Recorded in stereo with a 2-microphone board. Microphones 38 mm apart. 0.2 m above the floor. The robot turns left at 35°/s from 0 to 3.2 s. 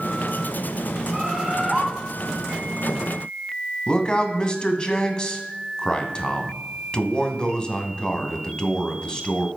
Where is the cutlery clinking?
No cutlery clinking in this recording.